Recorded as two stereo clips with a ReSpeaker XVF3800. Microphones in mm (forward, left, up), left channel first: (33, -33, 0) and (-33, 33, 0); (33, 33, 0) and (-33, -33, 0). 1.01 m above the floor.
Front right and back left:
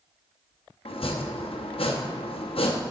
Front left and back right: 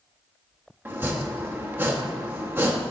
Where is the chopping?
65° right, 0.9 m.